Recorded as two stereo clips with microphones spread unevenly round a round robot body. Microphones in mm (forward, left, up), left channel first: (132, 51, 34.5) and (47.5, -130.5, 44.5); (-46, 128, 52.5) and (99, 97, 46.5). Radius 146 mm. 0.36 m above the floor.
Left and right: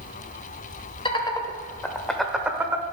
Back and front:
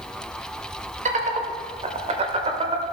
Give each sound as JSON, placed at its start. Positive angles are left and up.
{"t": 1.1, "sound": "laughter", "azimuth_deg": 5, "distance_m": 1.4}